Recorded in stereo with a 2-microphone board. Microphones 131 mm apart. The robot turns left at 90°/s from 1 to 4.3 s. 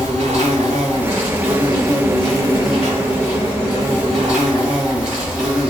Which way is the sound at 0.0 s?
75° right.